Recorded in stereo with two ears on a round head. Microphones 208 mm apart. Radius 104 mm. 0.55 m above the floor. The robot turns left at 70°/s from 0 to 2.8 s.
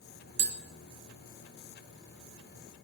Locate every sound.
0.4 s tapping: 50° right (ahead or behind), 0.6 m; by 0.6 s 40° right (ahead or behind), 0.6 m